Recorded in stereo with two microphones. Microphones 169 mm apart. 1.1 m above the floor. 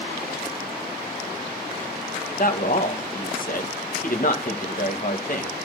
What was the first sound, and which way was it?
A man speaking, 55° left (ahead or behind).